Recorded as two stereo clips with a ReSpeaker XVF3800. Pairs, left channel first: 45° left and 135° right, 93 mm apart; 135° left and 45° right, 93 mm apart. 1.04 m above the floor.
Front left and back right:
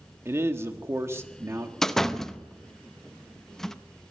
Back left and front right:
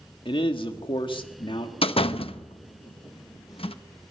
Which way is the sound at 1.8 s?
130° left.